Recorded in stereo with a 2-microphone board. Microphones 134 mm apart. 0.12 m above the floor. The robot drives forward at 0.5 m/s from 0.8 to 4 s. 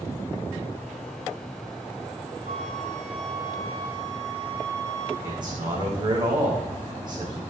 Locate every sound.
2.5 s a flute: 55° right (ahead or behind), 3 m; by 5.1 s 45° right (ahead or behind), 3.5 m
5.2 s a man speaking: 35° right (ahead or behind), 6 m